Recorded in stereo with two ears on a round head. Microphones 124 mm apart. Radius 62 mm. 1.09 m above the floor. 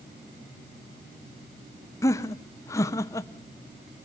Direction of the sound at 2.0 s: 20° left (ahead or behind).